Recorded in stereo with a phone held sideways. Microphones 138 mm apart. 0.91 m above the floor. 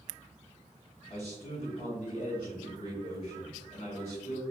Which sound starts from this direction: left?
A man speaking, at 1.1 s.